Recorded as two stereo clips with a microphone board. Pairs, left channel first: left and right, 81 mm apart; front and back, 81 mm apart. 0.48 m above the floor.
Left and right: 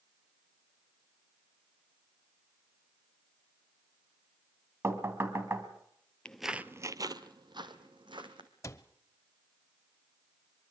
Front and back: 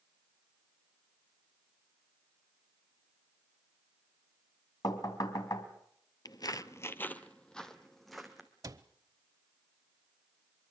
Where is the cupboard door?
140° left, 0.8 m.